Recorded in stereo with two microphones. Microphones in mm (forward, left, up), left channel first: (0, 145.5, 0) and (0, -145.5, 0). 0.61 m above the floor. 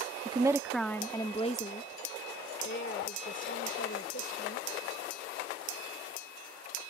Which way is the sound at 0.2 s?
20° right (ahead or behind).